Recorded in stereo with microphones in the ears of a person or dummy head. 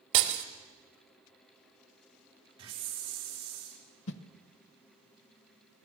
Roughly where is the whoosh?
Left.